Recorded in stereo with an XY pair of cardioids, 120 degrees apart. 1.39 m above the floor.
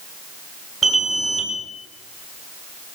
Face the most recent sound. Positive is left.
turn(degrees=-25)